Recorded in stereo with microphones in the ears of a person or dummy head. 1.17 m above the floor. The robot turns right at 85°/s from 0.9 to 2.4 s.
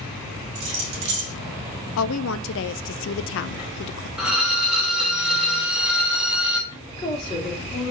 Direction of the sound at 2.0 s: 75° left.